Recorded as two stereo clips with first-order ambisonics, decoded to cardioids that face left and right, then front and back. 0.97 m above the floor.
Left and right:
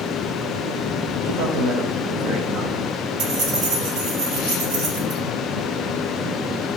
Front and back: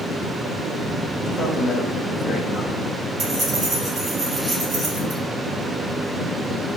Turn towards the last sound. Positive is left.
turn(degrees=-120)